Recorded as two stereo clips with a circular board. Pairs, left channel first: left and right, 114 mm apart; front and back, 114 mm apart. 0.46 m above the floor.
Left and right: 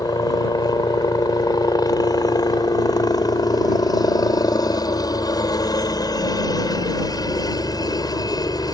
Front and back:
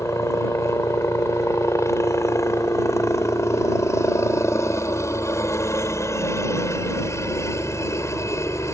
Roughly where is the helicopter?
Ahead left.